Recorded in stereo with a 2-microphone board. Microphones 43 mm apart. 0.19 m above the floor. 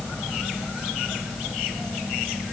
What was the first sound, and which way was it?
Only background noise.